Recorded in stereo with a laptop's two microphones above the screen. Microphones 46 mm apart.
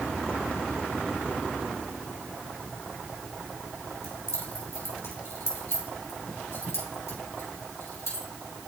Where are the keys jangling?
80° left, 2.5 m.